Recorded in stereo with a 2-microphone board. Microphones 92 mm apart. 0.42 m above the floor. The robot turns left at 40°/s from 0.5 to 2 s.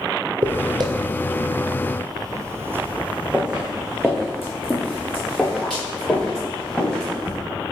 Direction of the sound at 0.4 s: 50° right (ahead or behind).